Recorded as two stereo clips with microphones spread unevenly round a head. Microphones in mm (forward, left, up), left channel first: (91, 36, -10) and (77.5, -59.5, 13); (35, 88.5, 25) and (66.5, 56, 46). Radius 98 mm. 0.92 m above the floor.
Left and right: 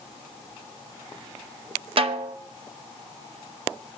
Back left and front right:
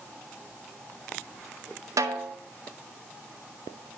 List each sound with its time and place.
2.0 s a snare drum: 70° right, 0.9 m